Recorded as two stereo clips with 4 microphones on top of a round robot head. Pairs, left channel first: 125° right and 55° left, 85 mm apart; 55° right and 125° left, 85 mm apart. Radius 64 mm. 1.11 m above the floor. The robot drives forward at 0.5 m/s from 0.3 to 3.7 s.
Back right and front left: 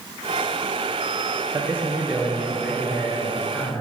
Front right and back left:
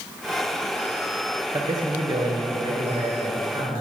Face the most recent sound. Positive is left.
turn(degrees=160)